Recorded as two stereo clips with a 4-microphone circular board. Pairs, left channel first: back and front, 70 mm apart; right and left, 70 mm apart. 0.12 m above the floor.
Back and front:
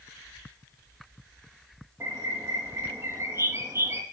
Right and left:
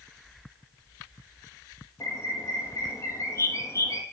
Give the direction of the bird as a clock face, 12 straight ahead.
2 o'clock.